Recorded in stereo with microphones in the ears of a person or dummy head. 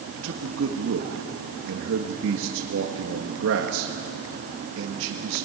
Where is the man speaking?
70° right (ahead or behind), 1.6 m.